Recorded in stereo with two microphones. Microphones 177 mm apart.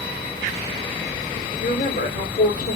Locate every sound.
1.6 s a woman speaking: 55° left (ahead or behind), 1.3 m